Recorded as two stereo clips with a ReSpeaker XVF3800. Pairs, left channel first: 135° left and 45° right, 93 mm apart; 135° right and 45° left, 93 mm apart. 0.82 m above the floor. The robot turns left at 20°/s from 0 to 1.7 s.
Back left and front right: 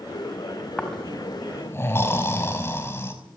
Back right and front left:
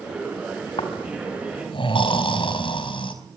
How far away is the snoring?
About 4.5 m.